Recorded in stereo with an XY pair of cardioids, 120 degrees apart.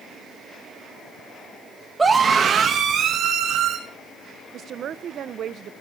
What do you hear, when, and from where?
2.0 s a scream: 15° right, 1.5 m; by 3.8 s 70° right, 2.5 m
4.5 s a woman speaking: 55° right, 0.9 m